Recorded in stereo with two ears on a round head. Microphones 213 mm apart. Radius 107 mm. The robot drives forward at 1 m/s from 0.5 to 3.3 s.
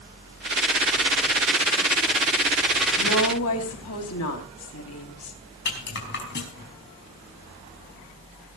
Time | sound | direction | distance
3.0 | a woman speaking | 60° left (ahead or behind) | 4 m
5.7 | a rattle | 50° left (ahead or behind) | 5 m